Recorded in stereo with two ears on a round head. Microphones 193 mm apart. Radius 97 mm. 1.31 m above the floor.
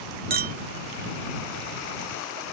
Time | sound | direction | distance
0.3 | a clink | 45° right (ahead or behind) | ?